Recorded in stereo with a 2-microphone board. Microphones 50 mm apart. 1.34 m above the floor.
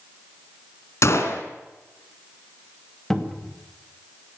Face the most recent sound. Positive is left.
turn(degrees=10)  # may be behind; listen again after turning